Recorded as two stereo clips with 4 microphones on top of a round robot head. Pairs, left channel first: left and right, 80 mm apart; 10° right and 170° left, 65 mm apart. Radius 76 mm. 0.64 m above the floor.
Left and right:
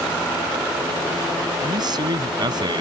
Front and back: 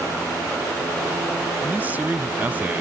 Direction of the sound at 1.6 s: 120° right.